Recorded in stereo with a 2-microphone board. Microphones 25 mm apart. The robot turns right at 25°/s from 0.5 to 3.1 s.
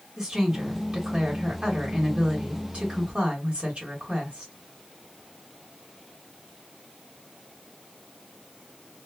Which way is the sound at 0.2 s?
150° right.